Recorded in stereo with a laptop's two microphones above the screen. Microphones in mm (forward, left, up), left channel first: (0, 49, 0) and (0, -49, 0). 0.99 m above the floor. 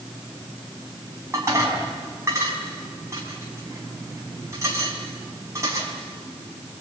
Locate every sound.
1.3 s dishes clattering: 30° right (ahead or behind), 4.5 m